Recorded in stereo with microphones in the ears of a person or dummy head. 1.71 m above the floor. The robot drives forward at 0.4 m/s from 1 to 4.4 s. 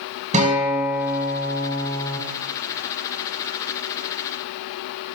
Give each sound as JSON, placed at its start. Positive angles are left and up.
{"t": 0.3, "sound": "a guitar", "side_deg": -40, "distance_m": 5.5}